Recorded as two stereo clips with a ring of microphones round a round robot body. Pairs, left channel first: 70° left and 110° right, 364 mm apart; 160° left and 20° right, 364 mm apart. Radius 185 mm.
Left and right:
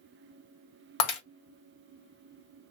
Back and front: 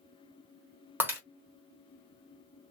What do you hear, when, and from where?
1.0 s breaking glass: 60° left, 1.2 m